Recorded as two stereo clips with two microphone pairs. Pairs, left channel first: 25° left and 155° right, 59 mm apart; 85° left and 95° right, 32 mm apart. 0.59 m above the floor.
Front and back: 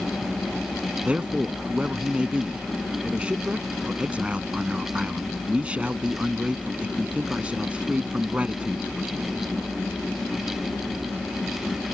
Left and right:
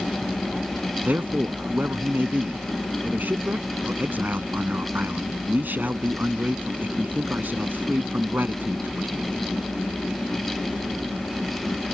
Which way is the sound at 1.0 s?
85° right.